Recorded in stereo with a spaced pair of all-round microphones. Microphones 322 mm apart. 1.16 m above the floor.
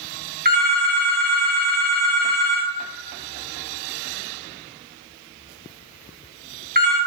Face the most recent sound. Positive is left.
turn(degrees=-30)  # may be behind; listen again after turning